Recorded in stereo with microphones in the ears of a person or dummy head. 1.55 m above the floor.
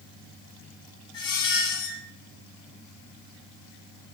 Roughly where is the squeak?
Left.